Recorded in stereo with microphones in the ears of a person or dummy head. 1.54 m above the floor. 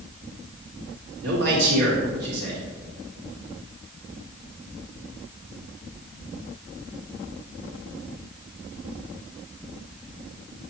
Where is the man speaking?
70° right (ahead or behind), 2.5 m.